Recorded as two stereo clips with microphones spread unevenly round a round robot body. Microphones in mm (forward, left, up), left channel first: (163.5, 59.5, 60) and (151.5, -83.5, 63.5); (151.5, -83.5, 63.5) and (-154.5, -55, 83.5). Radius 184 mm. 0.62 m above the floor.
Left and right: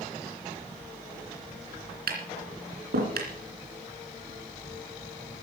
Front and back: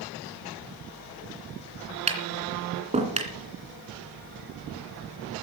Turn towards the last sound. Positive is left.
turn(degrees=-115)